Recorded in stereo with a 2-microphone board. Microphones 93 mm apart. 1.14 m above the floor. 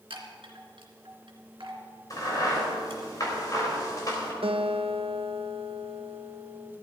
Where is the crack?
40° left (ahead or behind), 3.5 m.